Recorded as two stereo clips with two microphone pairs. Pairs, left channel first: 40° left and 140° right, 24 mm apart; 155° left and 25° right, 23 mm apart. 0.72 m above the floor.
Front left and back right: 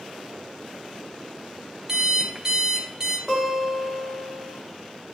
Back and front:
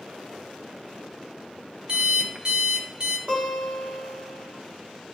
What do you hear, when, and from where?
1.9 s an alarm clock: 75° right, 0.7 m
3.3 s a guitar: 60° right, 2.5 m